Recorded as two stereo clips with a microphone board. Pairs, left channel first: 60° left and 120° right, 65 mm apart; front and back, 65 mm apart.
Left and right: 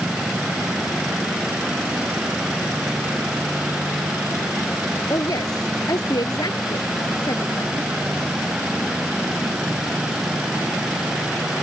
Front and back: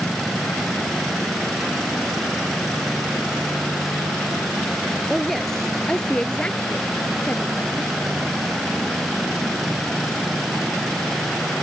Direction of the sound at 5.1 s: 85° left.